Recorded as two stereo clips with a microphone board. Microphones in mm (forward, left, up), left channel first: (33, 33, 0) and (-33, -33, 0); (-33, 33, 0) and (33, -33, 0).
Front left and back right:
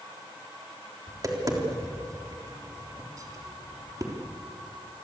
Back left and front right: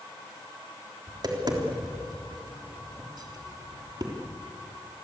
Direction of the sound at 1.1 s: 85° right.